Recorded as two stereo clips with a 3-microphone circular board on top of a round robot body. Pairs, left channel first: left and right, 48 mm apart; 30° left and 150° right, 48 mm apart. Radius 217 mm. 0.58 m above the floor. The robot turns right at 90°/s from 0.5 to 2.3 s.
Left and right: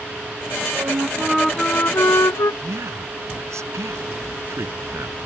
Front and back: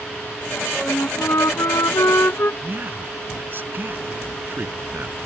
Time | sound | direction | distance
0.8 | a flute | 60° right | ?
2.6 | a man speaking | 100° right | ?